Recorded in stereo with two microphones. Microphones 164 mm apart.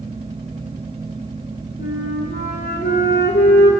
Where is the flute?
80° left, 3 m.